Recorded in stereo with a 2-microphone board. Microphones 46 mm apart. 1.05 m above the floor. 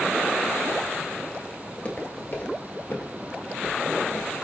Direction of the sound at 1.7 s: 30° left (ahead or behind).